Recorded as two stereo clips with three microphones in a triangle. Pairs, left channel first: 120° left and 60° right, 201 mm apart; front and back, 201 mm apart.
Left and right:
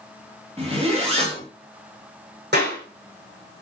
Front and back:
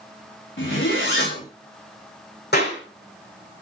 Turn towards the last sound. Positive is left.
turn(degrees=-30)